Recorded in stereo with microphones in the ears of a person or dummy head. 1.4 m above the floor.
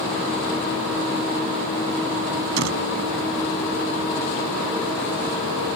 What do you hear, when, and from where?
2.6 s a door slam: 75° right (ahead or behind)